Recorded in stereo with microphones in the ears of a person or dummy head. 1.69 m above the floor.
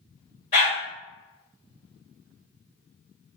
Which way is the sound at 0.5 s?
35° left (ahead or behind).